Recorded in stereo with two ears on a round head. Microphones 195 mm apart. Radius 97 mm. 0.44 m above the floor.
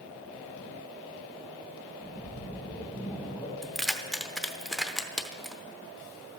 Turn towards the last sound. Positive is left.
turn(degrees=0)  # may be behind; listen again after turning